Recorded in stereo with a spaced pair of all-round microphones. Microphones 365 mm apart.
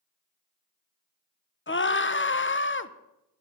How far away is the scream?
About 0.6 m.